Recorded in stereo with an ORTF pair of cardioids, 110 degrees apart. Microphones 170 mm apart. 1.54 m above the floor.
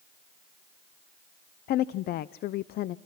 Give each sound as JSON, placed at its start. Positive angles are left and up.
{"t": 1.7, "sound": "a woman speaking", "azimuth_deg": 65, "distance_m": 0.6}